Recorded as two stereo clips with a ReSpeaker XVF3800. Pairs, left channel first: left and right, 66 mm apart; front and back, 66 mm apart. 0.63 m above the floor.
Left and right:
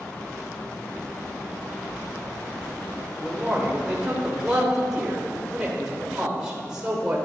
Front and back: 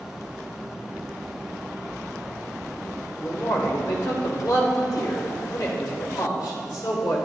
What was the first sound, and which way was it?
A man speaking, 10° right.